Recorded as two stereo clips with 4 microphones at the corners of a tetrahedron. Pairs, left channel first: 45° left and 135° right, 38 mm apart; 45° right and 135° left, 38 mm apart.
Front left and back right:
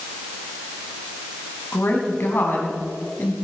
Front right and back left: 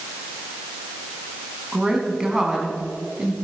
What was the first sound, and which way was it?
A woman speaking, 60° left.